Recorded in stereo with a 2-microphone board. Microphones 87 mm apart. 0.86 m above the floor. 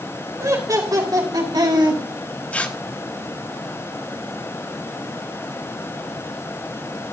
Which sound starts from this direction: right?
Laughter, at 0.4 s.